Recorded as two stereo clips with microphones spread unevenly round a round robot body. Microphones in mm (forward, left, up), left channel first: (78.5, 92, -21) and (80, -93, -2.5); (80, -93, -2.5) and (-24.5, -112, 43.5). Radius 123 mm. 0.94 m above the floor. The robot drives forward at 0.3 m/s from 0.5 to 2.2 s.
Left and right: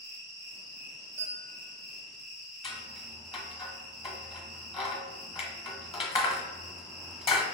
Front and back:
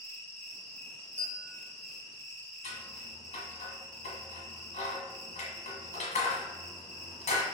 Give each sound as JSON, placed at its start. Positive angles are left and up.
{"t": 0.0, "sound": "an insect", "azimuth_deg": -155, "distance_m": 1.3}
{"t": 1.2, "sound": "a bell", "azimuth_deg": -170, "distance_m": 0.8}
{"t": 2.6, "sound": "scissors", "azimuth_deg": 40, "distance_m": 0.9}